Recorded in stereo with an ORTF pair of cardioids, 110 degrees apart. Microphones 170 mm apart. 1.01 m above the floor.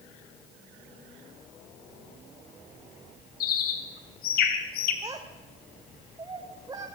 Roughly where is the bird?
Left.